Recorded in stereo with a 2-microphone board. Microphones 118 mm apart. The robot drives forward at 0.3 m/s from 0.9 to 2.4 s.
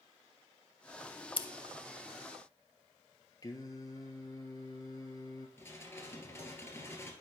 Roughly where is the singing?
Left.